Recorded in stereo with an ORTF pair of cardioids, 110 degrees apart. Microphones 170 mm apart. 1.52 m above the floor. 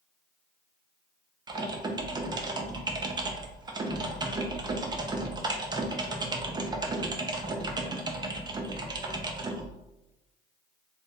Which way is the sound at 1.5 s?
25° right.